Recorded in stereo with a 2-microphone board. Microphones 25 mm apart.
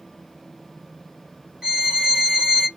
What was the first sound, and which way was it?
A violin, 20° right (ahead or behind).